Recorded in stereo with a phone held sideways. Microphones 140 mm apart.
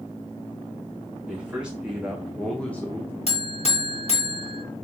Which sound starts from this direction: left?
A buzzer, at 3.3 s.